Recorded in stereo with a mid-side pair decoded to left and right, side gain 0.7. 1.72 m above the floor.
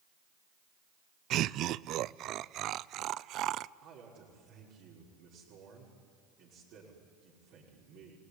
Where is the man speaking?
65° right, 5.5 m.